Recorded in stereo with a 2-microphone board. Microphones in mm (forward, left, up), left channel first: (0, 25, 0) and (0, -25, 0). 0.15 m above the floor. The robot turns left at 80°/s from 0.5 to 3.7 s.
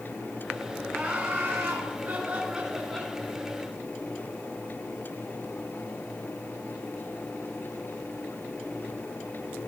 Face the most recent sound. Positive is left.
turn(degrees=110)